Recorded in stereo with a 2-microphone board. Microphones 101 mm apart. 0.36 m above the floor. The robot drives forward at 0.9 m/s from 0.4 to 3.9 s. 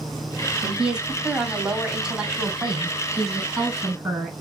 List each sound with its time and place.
0.6 s a woman speaking: 10° right (ahead or behind), 1.7 m; by 4.3 s 5° right (ahead or behind), 4.5 m